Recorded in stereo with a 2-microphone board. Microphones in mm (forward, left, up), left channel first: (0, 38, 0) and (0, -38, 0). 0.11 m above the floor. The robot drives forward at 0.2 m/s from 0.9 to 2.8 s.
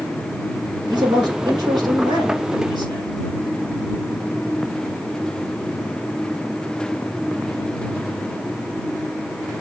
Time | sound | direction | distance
0.9 | a man speaking | 70° right (ahead or behind) | 4 m